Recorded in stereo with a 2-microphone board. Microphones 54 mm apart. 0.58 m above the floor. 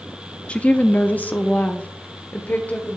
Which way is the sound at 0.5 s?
20° left (ahead or behind).